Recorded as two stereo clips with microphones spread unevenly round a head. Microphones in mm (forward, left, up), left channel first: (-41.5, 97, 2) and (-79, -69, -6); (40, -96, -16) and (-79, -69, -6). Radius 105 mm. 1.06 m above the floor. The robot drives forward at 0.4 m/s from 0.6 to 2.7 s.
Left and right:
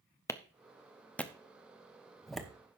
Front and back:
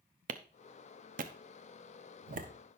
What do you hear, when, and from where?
0.3 s a clap: 150° left, 0.7 m; by 2.5 s 165° left, 1.4 m